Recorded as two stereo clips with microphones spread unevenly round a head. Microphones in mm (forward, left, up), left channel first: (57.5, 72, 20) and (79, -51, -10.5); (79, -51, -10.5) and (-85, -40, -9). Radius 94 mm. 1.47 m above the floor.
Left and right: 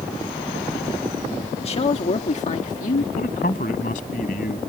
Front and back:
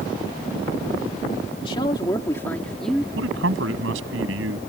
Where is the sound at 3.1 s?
150° left.